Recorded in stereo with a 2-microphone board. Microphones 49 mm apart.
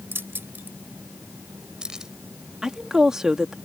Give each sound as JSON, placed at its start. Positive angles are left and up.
{"t": 0.1, "sound": "keys jangling", "side_deg": -55}
{"t": 2.6, "sound": "a woman speaking", "side_deg": -10}